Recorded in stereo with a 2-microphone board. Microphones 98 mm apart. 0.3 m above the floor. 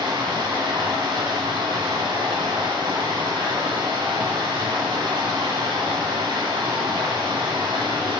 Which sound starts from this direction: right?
Running water, at 0.0 s.